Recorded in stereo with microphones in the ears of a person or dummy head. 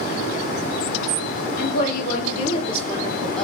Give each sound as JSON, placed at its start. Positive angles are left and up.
{"t": 1.6, "sound": "a woman speaking", "side_deg": 55, "distance_m": 1.2}